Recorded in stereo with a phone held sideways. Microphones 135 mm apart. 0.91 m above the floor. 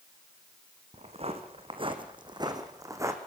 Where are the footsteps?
50° right (ahead or behind), 3 m; by 3.2 s 20° right (ahead or behind), 3 m.